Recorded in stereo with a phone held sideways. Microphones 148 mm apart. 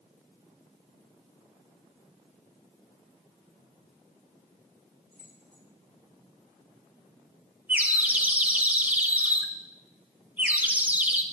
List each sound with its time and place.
5.1 s keys jangling: 75° right (ahead or behind), 6 m
7.7 s a bird: 10° right (ahead or behind), 1.0 m